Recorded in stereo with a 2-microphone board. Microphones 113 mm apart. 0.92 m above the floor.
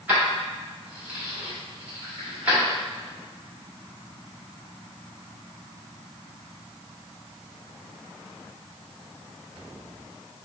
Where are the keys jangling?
15° right (ahead or behind), 1.5 m.